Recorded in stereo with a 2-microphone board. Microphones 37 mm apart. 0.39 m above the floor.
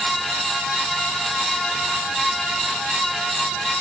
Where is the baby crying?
I don't hear a baby crying.